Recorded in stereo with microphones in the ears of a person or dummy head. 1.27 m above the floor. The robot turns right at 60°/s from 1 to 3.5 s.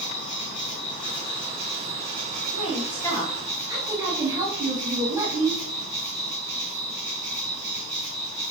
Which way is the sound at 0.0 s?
25° left (ahead or behind).